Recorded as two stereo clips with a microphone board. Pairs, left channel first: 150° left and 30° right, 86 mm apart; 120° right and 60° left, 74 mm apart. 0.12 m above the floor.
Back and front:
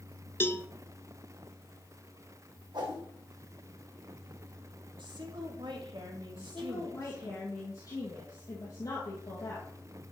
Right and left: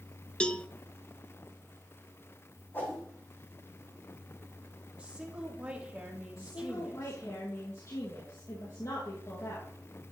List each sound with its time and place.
0.4 s a cowbell: 175° left, 0.5 m
2.7 s a whoosh: 60° right, 3.5 m
5.0 s a woman speaking: 15° right, 3.5 m
6.4 s a woman speaking: 165° right, 3 m